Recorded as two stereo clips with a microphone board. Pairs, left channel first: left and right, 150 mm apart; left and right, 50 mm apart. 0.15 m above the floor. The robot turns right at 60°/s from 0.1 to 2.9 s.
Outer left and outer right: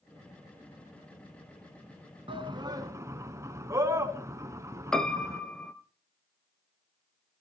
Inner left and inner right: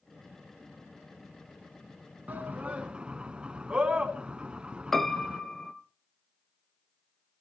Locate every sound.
2.3 s a shout: 35° right (ahead or behind), 1.3 m; by 5.4 s 20° right (ahead or behind), 1.3 m
4.9 s a piano: 5° left (ahead or behind), 0.9 m